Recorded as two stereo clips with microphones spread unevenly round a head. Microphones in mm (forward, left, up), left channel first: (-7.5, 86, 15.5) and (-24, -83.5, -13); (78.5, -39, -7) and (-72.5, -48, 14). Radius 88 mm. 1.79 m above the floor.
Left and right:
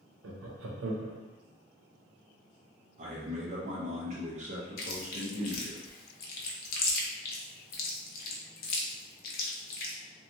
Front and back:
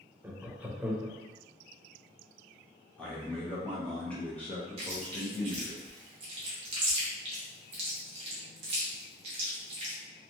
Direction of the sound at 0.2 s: 100° right.